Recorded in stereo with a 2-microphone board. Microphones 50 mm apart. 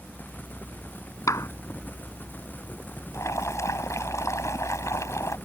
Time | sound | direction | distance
1.3 | a clap | 85° left | ?
3.1 | boiling | 80° left | ?